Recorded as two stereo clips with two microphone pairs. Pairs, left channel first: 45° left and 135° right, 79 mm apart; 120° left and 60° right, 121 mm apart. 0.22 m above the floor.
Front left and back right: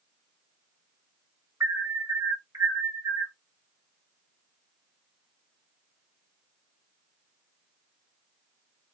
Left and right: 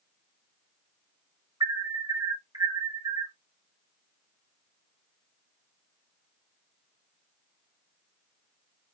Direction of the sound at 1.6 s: 100° right.